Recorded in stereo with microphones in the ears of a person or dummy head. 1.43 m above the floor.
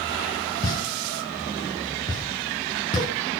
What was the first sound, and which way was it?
A pop, 25° left (ahead or behind).